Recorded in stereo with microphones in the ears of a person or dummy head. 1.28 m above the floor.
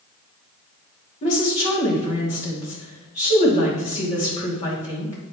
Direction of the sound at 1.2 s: 40° left (ahead or behind).